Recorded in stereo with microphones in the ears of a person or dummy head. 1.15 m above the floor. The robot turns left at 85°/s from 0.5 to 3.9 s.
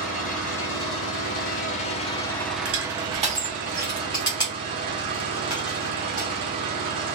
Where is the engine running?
175° left, 0.7 m; by 7.2 s 115° right, 0.7 m.